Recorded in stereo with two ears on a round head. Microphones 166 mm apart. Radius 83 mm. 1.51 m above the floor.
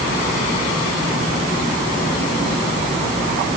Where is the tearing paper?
I don't hear tearing paper.